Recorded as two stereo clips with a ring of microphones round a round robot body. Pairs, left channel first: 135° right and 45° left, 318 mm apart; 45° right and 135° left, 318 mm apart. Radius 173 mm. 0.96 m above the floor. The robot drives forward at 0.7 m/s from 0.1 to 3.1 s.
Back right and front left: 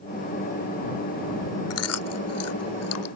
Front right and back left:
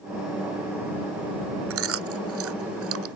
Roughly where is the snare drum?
I don't hear a snare drum.